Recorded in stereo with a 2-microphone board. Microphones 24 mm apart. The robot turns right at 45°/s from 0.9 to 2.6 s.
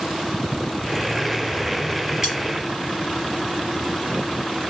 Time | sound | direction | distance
2.2 | cutlery clinking | 20° right (ahead or behind) | 3 m